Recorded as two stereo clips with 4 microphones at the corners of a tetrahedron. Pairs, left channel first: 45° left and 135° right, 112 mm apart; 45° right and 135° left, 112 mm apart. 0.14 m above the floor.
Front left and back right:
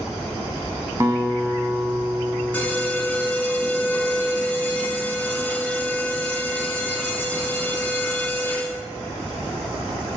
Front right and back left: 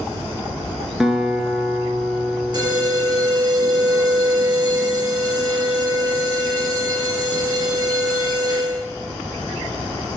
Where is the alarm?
115° left, 1.0 m.